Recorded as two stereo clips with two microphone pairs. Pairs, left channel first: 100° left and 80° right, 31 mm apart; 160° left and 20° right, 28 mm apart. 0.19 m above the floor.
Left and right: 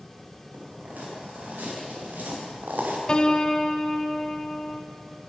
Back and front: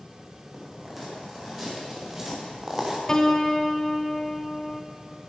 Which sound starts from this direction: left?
A piano, at 3.1 s.